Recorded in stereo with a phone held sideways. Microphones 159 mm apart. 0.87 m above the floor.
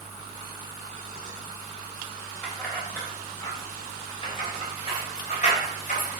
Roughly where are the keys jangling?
Centre.